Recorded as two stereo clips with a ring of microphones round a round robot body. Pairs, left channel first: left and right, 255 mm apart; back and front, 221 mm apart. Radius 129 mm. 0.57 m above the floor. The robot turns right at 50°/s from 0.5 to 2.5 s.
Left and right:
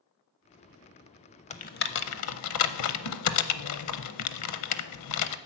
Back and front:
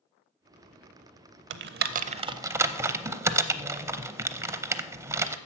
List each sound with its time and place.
1.5 s typing on a keyboard: 25° left, 0.6 m; by 5.4 s 75° left, 0.6 m